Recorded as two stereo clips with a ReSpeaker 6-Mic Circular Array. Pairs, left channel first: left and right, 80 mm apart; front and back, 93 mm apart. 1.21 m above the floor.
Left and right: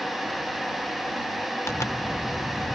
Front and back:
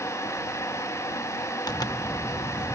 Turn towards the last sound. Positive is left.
turn(degrees=40)